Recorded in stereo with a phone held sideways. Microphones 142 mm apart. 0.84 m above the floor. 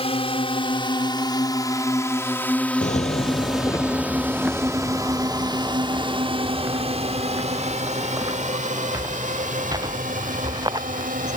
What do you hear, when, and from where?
0.0 s a drone: 40° left (ahead or behind); by 11.4 s 65° right (ahead or behind)
2.8 s footsteps: 55° left (ahead or behind); by 11.4 s 25° right (ahead or behind)